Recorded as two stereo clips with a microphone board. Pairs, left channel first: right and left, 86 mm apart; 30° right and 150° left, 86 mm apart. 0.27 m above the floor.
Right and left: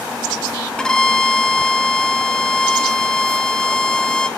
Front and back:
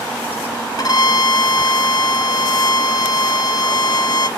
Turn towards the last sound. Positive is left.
turn(degrees=-10)